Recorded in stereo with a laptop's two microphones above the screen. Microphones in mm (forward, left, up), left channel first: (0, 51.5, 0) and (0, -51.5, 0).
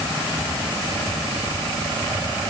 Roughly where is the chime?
No chime in this recording.